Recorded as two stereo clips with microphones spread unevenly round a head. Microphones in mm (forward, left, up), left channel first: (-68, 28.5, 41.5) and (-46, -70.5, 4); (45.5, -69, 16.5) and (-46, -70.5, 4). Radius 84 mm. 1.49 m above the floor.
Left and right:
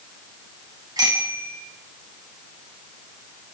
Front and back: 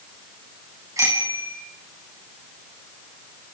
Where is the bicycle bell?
130° right, 9.5 m.